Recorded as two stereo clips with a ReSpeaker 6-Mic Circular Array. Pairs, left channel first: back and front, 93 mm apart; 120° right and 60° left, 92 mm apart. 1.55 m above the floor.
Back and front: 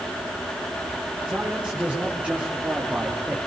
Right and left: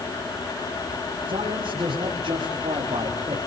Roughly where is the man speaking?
Left.